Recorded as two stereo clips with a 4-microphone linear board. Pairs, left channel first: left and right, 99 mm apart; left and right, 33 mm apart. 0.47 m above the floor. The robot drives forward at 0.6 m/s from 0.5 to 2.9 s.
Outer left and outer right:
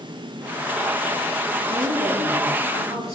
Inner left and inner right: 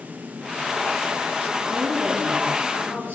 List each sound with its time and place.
1.7 s a woman speaking: 80° right, 7 m; by 3.1 s 75° right (ahead or behind), 7 m